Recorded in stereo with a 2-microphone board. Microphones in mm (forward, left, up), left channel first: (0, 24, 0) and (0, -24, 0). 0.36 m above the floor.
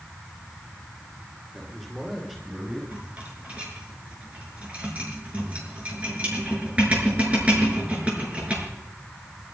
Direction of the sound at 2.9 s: 25° right (ahead or behind).